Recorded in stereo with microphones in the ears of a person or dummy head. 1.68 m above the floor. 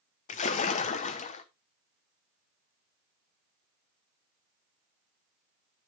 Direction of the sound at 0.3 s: 40° left (ahead or behind).